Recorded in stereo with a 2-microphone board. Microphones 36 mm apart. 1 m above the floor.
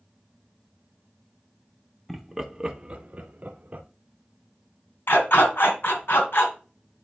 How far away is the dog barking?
About 2.5 m.